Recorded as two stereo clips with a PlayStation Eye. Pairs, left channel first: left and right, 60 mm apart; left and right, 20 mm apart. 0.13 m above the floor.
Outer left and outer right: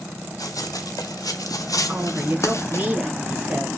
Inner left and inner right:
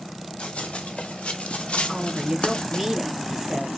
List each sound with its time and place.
0.4 s running footsteps: 80° left, 1.7 m; by 2.9 s 45° left (ahead or behind), 1.2 m
1.9 s a woman speaking: 25° right (ahead or behind), 2.0 m